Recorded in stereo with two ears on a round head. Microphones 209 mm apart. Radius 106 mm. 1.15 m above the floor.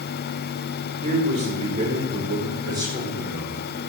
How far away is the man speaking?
About 4 m.